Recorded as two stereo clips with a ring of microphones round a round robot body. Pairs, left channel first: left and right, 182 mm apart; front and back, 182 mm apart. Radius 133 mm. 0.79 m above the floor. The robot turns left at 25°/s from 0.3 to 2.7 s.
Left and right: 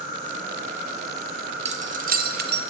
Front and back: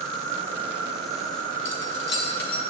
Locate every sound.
0.0 s an insect: 80° left, 2 m; by 2.7 s 20° left, 2 m
1.6 s keys jangling: 30° right, 0.6 m; by 2.6 s 55° right, 0.6 m